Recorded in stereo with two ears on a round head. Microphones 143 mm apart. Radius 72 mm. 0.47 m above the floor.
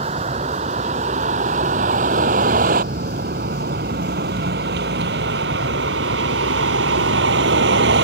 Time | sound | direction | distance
0.0 | a vehicle | 40° right (ahead or behind) | ?